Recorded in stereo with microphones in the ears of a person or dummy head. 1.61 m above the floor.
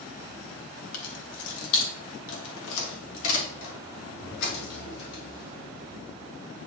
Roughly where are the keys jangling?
Left.